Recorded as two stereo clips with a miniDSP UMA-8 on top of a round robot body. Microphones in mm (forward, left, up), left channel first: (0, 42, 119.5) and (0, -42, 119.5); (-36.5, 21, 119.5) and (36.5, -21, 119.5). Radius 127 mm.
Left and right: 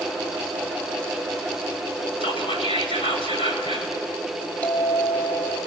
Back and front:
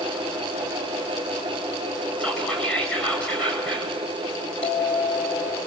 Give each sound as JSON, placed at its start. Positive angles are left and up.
{"t": 2.2, "sound": "whispering", "azimuth_deg": 75, "distance_m": 8.5}
{"t": 4.6, "sound": "a bell", "azimuth_deg": 165, "distance_m": 5.5}